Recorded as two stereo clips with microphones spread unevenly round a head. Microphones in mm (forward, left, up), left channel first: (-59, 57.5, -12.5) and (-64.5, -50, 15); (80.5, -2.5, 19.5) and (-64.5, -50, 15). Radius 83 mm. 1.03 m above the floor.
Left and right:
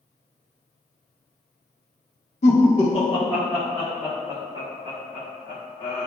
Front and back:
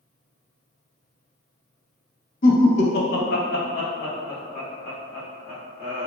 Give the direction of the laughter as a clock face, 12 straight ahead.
10 o'clock.